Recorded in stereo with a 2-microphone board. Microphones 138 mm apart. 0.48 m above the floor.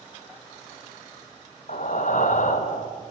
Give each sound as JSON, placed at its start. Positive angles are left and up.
{"t": 1.7, "sound": "breathing", "side_deg": 65, "distance_m": 0.8}